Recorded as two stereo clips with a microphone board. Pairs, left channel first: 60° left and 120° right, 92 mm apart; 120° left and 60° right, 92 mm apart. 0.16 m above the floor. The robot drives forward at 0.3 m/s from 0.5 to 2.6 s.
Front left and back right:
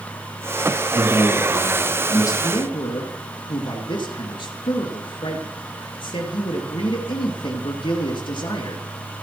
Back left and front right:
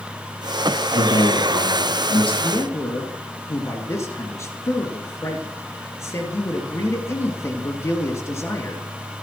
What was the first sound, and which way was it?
A man speaking, 110° left.